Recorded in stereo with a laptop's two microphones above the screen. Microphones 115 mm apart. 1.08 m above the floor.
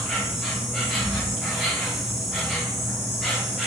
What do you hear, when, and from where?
0.0 s an insect: centre (ahead or behind), 0.8 m